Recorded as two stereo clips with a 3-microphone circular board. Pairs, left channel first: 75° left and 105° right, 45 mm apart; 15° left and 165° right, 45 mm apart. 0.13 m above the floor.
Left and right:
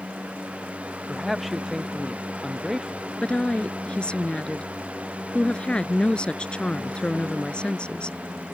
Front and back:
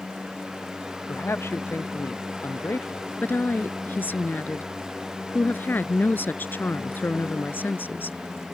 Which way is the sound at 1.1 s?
20° right.